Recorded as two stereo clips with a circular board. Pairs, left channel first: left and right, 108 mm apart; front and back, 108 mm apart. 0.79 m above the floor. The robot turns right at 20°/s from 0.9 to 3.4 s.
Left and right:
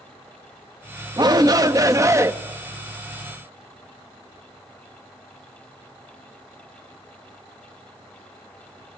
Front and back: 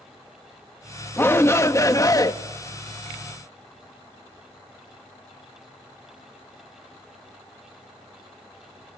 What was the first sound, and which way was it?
A shout, 60° right.